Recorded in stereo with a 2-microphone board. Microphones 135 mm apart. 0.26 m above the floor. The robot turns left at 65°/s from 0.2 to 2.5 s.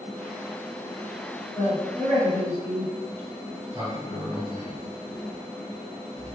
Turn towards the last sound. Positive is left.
turn(degrees=-45)  # may be behind; listen again after turning